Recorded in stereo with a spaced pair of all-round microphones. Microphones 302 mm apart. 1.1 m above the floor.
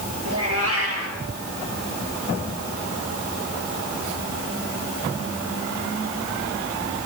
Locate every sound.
0.2 s a cat meowing: 50° right (ahead or behind), 8 m